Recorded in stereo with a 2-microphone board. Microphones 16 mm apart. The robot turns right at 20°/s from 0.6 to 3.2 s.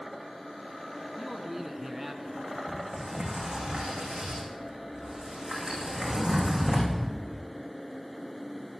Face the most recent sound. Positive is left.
turn(degrees=-60)  # may be behind; listen again after turning